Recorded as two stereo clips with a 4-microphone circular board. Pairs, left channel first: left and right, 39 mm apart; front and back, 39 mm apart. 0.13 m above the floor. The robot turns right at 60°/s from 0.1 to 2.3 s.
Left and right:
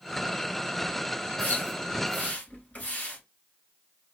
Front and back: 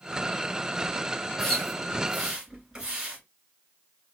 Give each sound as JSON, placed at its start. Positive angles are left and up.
{"t": 1.4, "sound": "a splash", "azimuth_deg": 65, "distance_m": 1.7}